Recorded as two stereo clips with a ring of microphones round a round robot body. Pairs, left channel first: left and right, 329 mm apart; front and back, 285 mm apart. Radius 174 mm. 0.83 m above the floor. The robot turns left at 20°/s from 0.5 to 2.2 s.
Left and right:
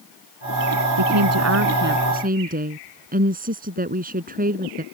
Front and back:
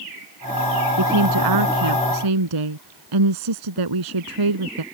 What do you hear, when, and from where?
1.0 s a woman speaking: 135° right; by 4.8 s 155° right